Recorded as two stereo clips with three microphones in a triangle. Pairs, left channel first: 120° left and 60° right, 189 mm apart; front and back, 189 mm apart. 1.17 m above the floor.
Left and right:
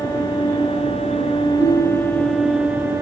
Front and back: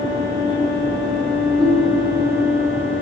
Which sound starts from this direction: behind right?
A ringtone, at 1.6 s.